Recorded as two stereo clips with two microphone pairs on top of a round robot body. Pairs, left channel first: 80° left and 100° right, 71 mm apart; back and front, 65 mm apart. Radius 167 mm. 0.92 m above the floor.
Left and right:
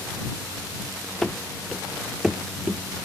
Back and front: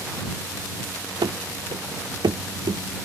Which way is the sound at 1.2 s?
Straight ahead.